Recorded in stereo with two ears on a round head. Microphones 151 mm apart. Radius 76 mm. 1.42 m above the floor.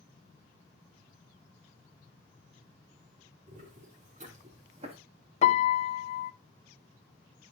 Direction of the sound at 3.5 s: 50° right (ahead or behind).